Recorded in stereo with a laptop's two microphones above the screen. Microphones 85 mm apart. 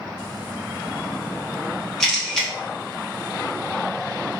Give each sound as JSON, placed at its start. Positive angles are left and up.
{"t": 2.0, "sound": "a camera shutter", "side_deg": 5, "distance_m": 0.6}